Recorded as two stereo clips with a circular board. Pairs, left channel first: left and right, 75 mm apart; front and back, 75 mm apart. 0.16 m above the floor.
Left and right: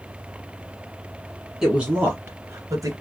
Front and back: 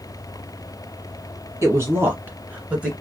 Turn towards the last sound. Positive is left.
turn(degrees=-105)